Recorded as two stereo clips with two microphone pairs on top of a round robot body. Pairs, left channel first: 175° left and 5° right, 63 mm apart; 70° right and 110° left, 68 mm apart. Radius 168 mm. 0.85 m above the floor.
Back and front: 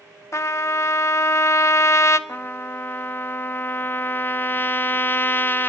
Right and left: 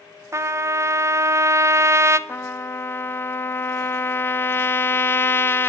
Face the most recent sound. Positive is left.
turn(degrees=-125)